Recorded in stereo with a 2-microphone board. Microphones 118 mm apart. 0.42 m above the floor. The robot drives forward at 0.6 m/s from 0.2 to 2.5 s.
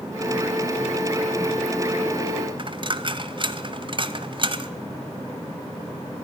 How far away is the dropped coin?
About 0.9 m.